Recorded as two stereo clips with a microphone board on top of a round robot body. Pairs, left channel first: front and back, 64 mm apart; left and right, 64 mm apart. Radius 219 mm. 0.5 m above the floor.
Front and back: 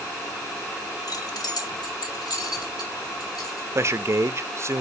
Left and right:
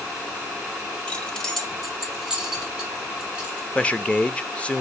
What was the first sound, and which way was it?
Keys jangling, 15° left.